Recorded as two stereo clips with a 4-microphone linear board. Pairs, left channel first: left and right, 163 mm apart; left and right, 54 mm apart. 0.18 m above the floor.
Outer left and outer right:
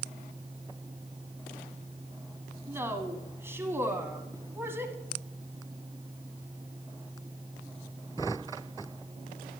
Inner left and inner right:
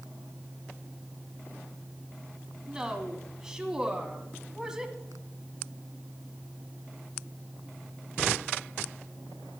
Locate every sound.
2.7 s a woman speaking: 15° right (ahead or behind), 1.3 m